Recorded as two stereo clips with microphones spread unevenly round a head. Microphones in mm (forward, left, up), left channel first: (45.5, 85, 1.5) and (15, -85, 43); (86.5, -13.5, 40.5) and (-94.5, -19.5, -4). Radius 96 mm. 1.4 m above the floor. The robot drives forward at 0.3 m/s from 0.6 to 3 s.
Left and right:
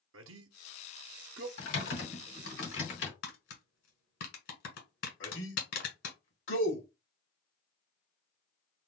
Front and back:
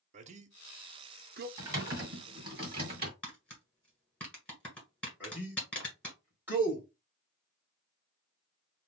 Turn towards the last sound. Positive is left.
turn(degrees=100)